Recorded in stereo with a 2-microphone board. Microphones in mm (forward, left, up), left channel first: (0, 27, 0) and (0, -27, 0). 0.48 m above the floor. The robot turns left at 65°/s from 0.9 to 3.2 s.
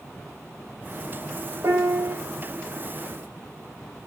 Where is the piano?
100° right, 0.7 m; by 2.2 s 135° right, 0.7 m.